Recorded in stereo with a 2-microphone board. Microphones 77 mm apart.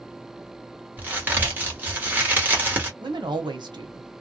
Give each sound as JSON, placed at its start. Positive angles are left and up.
{"t": 1.0, "sound": "a crack", "side_deg": -20, "distance_m": 1.3}
{"t": 3.0, "sound": "a woman speaking", "side_deg": -70, "distance_m": 1.2}